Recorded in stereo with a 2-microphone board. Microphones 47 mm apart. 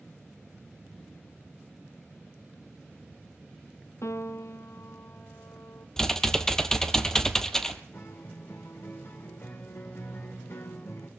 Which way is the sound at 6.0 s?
10° left (ahead or behind).